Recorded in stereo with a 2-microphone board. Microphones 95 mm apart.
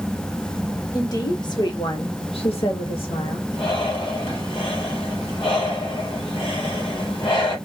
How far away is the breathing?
About 1.3 m.